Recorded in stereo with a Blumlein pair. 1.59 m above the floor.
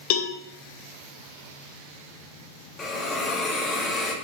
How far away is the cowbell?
About 1.3 m.